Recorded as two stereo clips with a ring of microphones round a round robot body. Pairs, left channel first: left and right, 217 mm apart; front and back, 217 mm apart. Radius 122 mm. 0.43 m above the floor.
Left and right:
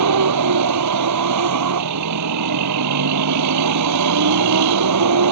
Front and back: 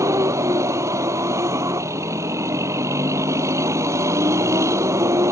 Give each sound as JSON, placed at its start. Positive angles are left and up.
{"t": 0.0, "sound": "a vehicle", "azimuth_deg": -100}